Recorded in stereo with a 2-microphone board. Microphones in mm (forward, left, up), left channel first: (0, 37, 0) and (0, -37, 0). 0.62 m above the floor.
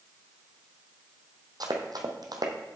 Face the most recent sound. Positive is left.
turn(degrees=-65)  # may be behind; listen again after turning